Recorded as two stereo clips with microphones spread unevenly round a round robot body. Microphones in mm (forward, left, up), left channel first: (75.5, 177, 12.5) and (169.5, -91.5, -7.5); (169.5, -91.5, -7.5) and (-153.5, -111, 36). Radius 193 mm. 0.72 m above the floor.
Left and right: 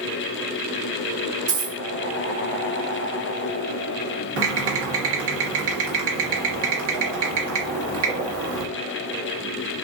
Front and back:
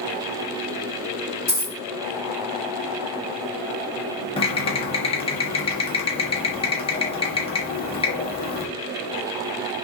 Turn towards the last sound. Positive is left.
turn(degrees=-60)